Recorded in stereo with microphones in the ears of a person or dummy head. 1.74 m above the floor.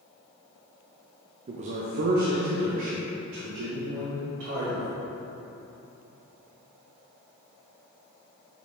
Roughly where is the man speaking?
Right.